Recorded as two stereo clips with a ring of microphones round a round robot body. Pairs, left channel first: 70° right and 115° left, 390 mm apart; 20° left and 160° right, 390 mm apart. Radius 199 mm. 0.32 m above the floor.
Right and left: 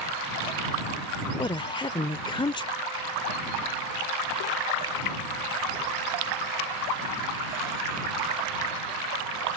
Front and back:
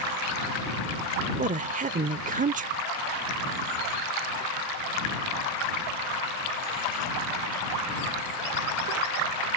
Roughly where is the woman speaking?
Behind right.